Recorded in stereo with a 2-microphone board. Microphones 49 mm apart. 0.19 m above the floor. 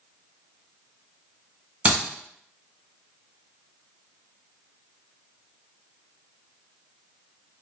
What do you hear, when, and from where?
1.9 s a clap: 30° right (ahead or behind), 1.7 m